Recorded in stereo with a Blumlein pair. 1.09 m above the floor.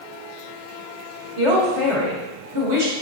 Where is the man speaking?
55° right, 2.0 m.